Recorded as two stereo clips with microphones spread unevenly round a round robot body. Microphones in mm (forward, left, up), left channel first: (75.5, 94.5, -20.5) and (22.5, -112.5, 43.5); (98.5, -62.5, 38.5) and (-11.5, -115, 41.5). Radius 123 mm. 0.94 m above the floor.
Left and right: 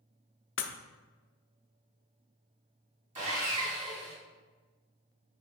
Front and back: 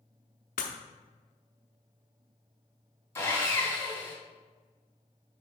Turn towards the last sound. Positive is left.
turn(degrees=-40)